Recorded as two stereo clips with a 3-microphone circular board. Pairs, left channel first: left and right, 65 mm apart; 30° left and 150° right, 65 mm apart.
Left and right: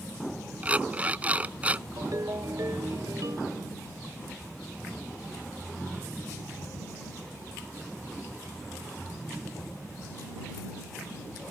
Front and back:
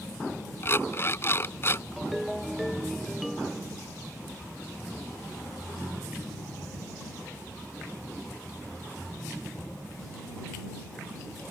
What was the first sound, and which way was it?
An alarm clock, 25° right.